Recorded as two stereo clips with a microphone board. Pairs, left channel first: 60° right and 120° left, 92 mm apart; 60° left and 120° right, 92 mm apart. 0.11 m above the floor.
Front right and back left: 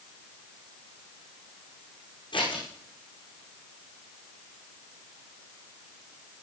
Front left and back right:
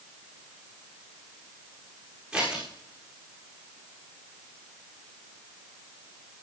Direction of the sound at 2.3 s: 40° right.